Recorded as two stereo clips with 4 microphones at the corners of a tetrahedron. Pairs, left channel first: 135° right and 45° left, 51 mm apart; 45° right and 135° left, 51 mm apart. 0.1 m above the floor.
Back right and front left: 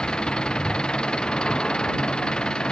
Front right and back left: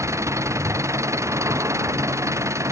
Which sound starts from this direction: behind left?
An engine running, at 0.0 s.